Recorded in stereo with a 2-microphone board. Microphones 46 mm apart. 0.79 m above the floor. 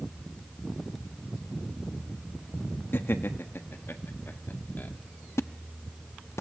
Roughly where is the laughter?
Left.